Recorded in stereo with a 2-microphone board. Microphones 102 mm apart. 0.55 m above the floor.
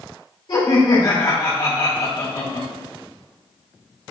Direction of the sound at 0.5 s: 50° left (ahead or behind).